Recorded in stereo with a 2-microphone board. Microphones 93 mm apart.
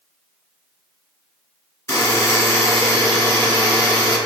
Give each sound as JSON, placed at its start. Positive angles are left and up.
{"t": 1.9, "sound": "a buzzer", "side_deg": 30, "distance_m": 1.5}